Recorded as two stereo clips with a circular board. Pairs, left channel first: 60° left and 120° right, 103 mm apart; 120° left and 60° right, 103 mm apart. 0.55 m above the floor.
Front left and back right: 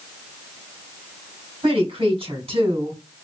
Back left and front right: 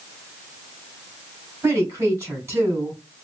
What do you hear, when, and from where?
1.6 s a woman speaking: 125° right, 3 m